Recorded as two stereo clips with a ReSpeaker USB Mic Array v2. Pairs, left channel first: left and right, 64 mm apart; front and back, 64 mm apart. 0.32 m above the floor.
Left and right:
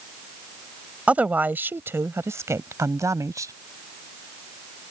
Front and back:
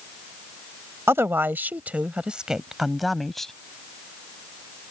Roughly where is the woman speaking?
Behind right.